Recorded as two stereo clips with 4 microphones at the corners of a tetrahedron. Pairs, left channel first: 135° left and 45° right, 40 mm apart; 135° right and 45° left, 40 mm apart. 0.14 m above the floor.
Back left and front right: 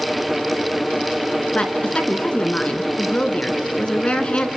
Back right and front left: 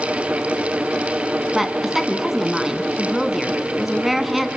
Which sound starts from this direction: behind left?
A woman speaking, at 1.5 s.